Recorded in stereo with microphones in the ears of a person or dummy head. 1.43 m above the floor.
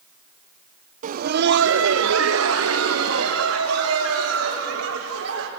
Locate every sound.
1.0 s laughter: 45° right (ahead or behind), 0.7 m; by 5.5 s 80° right, 4.5 m